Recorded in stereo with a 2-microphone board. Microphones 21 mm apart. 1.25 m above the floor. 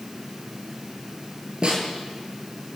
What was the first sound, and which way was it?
A snare drum, 50° right (ahead or behind).